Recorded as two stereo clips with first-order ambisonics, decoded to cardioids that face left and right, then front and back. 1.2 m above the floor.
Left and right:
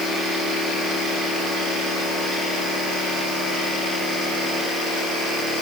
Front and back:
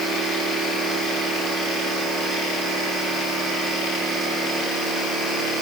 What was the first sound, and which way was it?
Only background noise.